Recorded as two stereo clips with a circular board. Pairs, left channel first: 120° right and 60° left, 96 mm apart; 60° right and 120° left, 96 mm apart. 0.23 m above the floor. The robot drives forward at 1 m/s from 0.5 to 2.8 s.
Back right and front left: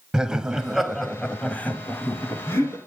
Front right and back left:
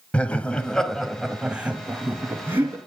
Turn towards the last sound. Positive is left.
turn(degrees=180)